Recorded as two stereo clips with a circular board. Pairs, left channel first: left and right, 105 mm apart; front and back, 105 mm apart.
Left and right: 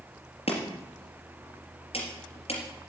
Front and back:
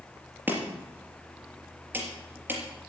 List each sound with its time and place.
0.5 s chopping: 110° left, 3 m